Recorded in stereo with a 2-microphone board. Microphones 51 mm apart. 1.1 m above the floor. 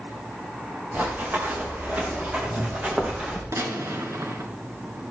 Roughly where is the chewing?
No chewing in this recording.